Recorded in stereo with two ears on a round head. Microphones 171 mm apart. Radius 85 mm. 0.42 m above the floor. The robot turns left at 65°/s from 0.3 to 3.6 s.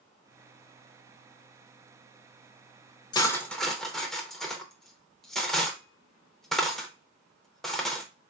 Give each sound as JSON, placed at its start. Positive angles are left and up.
{"t": 3.1, "sound": "cutlery clinking", "side_deg": 20, "distance_m": 0.5}